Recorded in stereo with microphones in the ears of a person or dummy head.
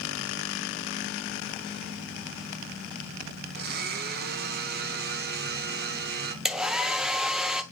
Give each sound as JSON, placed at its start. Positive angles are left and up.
{"t": 3.5, "sound": "a blender", "side_deg": -50, "distance_m": 0.7}
{"t": 6.5, "sound": "a hair dryer", "side_deg": -5, "distance_m": 0.6}